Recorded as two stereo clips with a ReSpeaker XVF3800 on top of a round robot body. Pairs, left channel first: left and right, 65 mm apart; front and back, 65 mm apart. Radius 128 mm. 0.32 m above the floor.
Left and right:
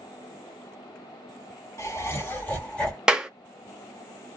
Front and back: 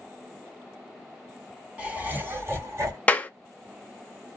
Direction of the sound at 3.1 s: 30° right.